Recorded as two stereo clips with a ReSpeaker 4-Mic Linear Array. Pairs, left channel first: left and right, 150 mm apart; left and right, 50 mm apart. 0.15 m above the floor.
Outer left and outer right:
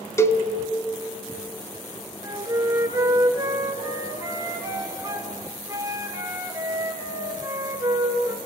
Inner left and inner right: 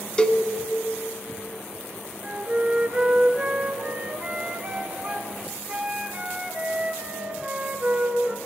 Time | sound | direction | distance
0.2 | a cowbell | 20° left (ahead or behind) | 1.0 m
2.2 | a flute | 20° right (ahead or behind) | 1.8 m